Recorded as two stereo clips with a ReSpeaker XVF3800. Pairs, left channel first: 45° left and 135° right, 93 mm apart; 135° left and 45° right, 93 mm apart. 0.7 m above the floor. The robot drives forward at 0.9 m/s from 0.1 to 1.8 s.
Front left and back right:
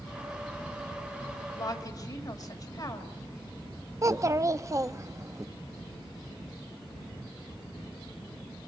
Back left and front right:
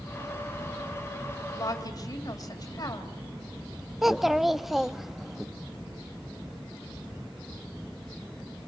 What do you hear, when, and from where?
1.5 s a woman speaking: 85° left, 3.5 m; by 3.1 s 90° left, 3.5 m
4.0 s a child speaking: 130° right, 0.6 m